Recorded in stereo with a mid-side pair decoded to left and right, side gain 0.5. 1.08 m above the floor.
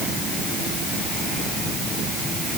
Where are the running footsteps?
I don't hear running footsteps.